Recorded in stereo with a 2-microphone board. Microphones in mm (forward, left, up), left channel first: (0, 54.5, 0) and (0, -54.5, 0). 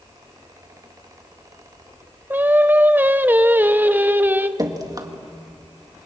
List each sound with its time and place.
2.3 s singing: 15° right (ahead or behind), 0.8 m
4.6 s dripping: 35° right (ahead or behind), 1.8 m